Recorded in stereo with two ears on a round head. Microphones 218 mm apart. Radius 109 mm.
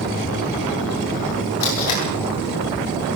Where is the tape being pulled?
70° left (ahead or behind), 9 m.